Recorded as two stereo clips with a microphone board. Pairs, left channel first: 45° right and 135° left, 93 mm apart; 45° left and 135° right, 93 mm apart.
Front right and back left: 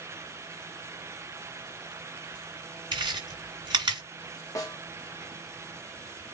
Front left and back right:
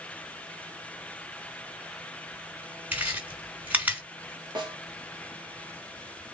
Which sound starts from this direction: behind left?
Chewing, at 2.9 s.